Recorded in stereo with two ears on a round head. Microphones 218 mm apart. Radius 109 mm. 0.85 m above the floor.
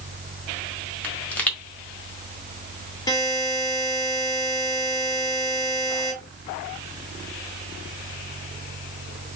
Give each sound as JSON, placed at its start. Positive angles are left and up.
{"t": 1.0, "sound": "a pop", "side_deg": 5, "distance_m": 1.6}
{"t": 3.1, "sound": "a buzzer", "side_deg": 15, "distance_m": 2.0}